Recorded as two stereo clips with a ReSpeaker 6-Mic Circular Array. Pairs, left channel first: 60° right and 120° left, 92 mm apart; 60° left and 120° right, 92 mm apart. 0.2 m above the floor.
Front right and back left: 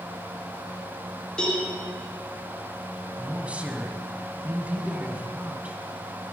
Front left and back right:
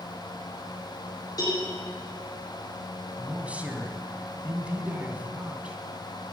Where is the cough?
No cough in this recording.